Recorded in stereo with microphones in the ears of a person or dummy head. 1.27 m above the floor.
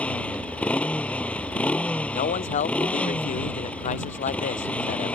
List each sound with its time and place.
0.0 s a motorcycle: 10° left (ahead or behind)
2.1 s a man speaking: 40° left (ahead or behind)